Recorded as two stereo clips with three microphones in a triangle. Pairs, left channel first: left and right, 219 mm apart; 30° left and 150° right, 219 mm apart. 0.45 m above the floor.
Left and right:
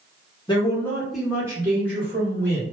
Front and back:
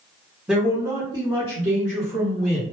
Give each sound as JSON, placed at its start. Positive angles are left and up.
{"t": 0.5, "sound": "a man speaking", "azimuth_deg": 125, "distance_m": 1.1}